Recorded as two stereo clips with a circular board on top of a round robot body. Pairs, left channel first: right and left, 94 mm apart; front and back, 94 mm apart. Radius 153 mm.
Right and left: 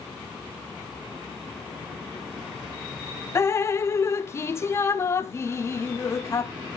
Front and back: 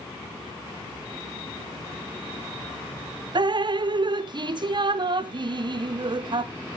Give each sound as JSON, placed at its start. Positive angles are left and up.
{"t": 3.4, "sound": "dripping", "azimuth_deg": -150, "distance_m": 0.7}